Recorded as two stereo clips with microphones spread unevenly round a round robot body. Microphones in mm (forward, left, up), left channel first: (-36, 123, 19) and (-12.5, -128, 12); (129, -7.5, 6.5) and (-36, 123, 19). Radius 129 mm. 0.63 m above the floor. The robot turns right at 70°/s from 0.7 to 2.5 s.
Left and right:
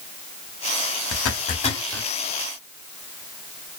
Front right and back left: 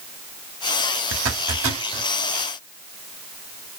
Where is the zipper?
125° left, 0.7 m; by 2.1 s 170° right, 0.7 m.